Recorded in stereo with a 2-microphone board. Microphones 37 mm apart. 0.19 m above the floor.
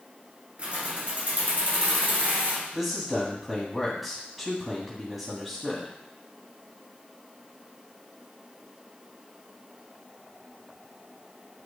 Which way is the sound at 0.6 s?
35° right (ahead or behind).